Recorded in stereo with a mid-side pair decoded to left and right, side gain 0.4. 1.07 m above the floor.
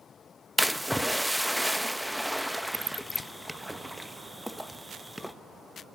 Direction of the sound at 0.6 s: Straight ahead.